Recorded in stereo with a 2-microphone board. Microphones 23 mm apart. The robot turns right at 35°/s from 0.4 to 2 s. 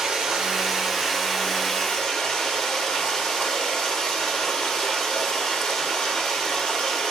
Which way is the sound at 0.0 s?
35° right.